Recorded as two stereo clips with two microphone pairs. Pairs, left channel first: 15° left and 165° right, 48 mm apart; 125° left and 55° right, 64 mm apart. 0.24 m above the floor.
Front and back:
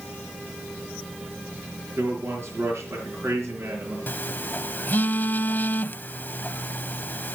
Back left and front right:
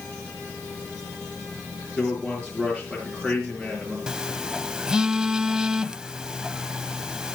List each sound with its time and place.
2.0 s a man speaking: 135° right, 3.5 m
4.1 s a phone buzzing: 15° left, 0.5 m